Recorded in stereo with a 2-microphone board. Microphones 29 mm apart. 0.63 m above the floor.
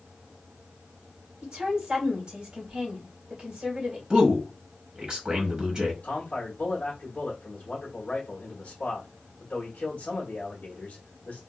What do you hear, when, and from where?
1.4 s a woman speaking: 30° right (ahead or behind), 2 m
4.1 s a man speaking: 30° right (ahead or behind), 1.2 m
6.0 s a man speaking: 45° left (ahead or behind), 1.4 m